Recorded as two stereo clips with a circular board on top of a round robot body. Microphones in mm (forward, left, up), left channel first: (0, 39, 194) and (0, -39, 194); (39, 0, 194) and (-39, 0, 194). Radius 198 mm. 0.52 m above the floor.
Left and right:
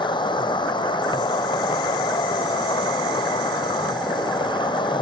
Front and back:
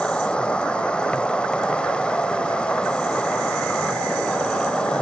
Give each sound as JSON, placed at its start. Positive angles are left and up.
{"t": 0.0, "sound": "an insect", "azimuth_deg": 75}